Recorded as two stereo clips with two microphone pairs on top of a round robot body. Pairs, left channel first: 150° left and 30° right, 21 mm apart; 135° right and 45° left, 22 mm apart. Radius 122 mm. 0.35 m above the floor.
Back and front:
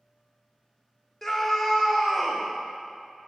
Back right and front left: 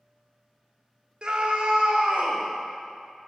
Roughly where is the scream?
Left.